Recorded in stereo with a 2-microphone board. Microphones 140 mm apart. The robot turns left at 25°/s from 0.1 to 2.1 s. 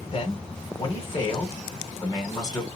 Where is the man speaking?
95° left, 1.5 m; by 2.7 s 45° left, 1.5 m.